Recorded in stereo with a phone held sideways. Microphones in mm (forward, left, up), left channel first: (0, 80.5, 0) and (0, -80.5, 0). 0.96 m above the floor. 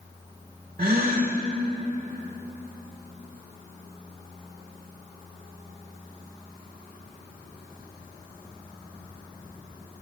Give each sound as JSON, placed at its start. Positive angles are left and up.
{"t": 0.8, "sound": "a gasp", "side_deg": -75, "distance_m": 1.4}